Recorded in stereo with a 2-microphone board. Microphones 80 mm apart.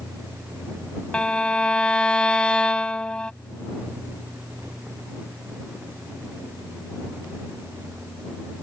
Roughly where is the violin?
Centre.